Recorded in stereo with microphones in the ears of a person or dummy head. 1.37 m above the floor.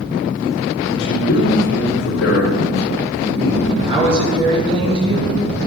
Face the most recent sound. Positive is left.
turn(degrees=-30)  # may be behind; listen again after turning